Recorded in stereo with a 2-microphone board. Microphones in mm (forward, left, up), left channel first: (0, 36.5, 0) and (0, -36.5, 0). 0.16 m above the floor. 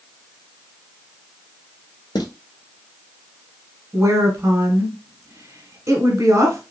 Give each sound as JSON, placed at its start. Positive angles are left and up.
{"t": 2.1, "sound": "footsteps", "side_deg": 70, "distance_m": 1.2}
{"t": 3.9, "sound": "a woman speaking", "side_deg": -40, "distance_m": 1.2}